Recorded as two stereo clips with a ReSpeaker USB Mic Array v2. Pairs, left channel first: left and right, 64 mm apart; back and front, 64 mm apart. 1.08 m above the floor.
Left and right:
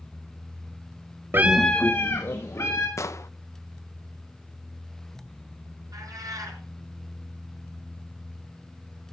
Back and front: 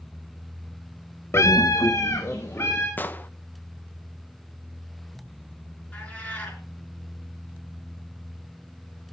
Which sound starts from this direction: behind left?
An explosion, at 3.0 s.